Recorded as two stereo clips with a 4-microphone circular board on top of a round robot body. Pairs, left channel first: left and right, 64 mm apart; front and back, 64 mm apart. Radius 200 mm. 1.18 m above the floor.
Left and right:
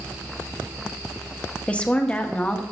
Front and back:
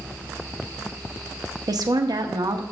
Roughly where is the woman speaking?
Behind.